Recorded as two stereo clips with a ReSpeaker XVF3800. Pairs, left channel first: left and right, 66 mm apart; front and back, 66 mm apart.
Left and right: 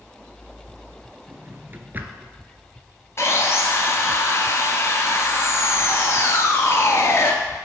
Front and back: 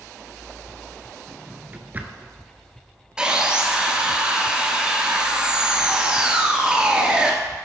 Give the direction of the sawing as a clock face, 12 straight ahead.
8 o'clock.